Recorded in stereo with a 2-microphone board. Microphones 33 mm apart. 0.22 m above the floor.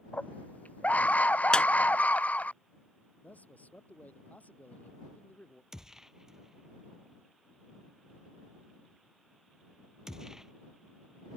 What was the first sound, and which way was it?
A scream, 50° left (ahead or behind).